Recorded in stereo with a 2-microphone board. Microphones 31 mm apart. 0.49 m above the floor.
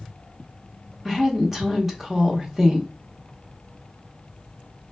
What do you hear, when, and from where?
1.1 s a woman speaking: 10° right (ahead or behind), 0.9 m